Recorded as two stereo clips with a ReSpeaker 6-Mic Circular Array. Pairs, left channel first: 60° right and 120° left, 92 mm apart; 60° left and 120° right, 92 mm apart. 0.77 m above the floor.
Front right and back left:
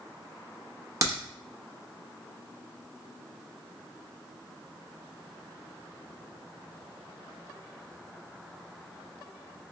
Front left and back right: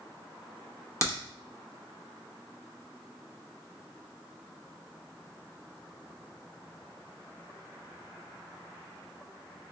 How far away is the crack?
About 0.9 m.